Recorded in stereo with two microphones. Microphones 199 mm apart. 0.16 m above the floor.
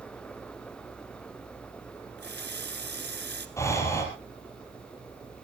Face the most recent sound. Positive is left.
turn(degrees=15)  # may be behind; listen again after turning